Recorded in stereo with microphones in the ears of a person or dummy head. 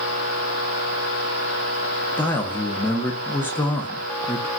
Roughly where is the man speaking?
Centre.